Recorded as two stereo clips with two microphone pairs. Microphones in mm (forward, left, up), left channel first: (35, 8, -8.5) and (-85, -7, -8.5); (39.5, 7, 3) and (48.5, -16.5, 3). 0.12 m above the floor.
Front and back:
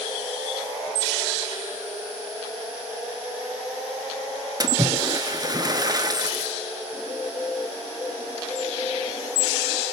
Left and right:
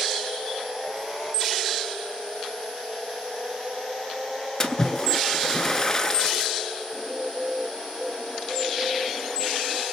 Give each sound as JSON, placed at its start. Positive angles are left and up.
{"t": 4.6, "sound": "a splash", "azimuth_deg": 165, "distance_m": 0.6}
{"t": 6.9, "sound": "a bird", "azimuth_deg": -25, "distance_m": 1.5}